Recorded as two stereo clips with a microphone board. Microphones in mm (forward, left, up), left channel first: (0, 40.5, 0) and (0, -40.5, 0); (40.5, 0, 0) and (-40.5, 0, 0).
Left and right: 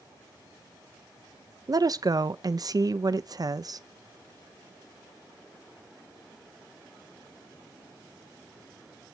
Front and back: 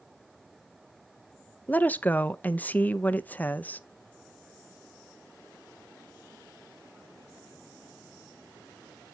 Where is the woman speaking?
65° right, 0.6 m.